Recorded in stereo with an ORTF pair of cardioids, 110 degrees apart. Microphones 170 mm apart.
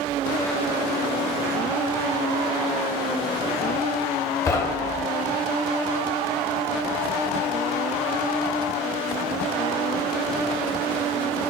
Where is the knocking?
20° left, 0.6 m.